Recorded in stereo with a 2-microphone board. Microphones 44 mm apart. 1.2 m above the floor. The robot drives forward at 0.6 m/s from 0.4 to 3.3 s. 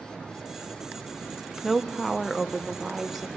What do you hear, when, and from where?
1.6 s a woman speaking: centre (ahead or behind), 0.5 m